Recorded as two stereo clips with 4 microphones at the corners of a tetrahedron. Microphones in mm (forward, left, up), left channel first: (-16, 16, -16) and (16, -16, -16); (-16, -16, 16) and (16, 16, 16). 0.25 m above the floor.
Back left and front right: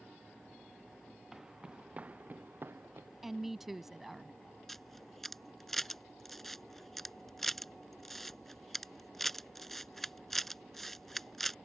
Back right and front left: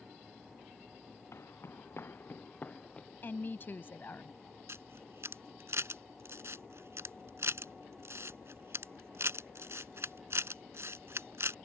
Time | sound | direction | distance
1.3 | footsteps | 125° right | ?
3.2 | a woman speaking | 130° right | ?
4.7 | a camera shutter | 50° left | ?